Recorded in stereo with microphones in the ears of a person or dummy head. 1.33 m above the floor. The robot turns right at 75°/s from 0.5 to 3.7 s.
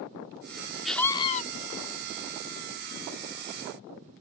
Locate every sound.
0.8 s a scream: straight ahead; by 1.4 s 40° left